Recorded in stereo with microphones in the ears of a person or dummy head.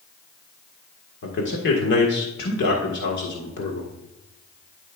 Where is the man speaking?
65° left (ahead or behind), 1.8 m.